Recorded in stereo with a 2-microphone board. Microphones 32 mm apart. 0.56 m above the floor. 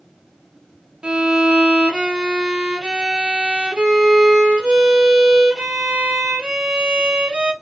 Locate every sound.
1.0 s a violin: 30° right (ahead or behind), 0.6 m